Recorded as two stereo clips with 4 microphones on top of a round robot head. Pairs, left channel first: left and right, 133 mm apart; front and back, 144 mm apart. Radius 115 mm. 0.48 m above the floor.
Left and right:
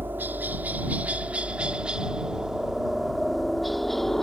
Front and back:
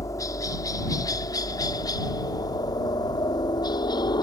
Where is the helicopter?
35° right; by 4.2 s 5° left.